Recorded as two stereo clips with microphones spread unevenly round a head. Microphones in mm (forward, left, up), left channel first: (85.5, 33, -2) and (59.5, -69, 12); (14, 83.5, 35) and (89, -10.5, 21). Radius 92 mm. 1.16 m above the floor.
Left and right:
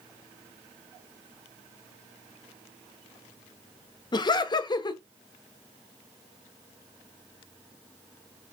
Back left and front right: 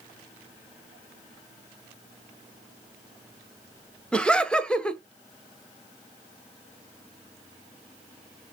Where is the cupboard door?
I don't hear a cupboard door.